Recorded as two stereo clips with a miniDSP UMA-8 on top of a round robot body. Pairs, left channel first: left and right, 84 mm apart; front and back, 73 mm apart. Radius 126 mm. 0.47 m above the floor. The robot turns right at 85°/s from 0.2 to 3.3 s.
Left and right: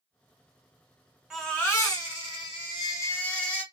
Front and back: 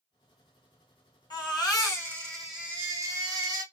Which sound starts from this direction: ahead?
A baby crying, at 1.3 s.